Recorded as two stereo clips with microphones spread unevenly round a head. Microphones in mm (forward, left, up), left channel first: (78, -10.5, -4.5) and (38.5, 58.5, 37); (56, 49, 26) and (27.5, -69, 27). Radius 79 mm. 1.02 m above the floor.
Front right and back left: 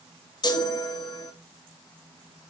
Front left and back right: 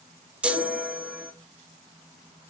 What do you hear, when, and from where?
0.4 s a chime: 25° right, 1.4 m